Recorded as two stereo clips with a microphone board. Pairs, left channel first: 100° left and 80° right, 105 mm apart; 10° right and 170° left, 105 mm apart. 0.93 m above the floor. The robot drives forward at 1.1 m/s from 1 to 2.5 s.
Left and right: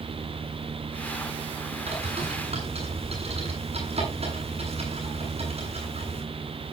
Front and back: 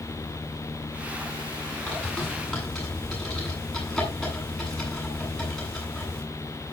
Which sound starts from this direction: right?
A bird, at 1.9 s.